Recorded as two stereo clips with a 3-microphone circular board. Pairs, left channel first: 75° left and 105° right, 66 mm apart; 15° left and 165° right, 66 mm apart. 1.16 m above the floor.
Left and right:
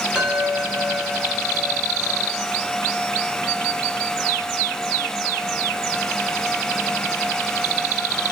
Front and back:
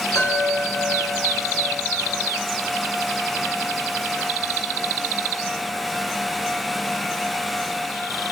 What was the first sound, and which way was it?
A chime, 30° right.